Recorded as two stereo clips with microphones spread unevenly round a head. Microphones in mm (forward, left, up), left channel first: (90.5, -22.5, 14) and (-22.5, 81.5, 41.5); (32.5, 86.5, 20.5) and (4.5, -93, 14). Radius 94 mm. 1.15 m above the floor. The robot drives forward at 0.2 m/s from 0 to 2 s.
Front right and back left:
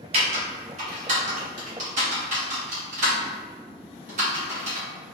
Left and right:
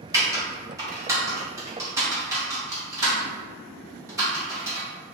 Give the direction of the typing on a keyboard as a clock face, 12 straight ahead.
6 o'clock.